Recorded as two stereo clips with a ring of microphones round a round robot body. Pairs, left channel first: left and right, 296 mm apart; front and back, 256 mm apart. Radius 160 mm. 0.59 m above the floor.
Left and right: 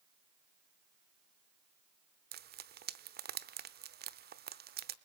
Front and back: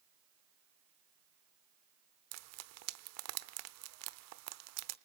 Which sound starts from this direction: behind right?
Frying, at 2.3 s.